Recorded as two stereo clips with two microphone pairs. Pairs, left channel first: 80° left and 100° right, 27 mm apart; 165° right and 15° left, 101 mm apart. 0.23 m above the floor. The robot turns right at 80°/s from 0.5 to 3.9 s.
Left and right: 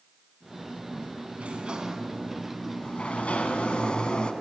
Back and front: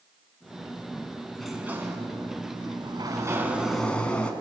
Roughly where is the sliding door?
Right.